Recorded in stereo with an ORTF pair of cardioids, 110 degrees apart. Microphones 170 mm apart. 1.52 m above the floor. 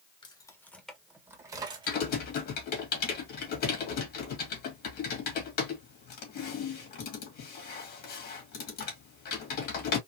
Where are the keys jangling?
30° left, 1.2 m; by 2.0 s 35° right, 1.6 m.